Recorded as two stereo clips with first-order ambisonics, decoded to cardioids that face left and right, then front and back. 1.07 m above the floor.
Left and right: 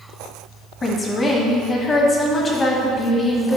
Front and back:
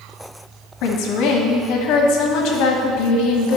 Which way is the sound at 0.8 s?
20° left.